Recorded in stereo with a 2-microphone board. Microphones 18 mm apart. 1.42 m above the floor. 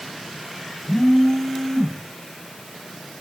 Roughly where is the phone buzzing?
Left.